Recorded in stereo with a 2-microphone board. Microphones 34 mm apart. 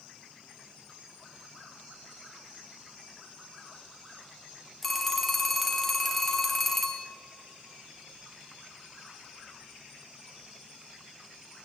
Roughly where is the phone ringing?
Centre.